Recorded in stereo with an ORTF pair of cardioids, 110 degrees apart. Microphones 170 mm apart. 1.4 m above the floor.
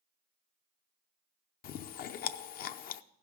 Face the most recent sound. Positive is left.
turn(degrees=60)